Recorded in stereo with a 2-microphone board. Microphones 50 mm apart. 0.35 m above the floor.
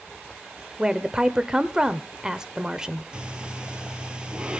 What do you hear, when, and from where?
0.8 s a woman speaking: 15° right (ahead or behind), 0.8 m
3.1 s breathing: 15° right (ahead or behind), 1.2 m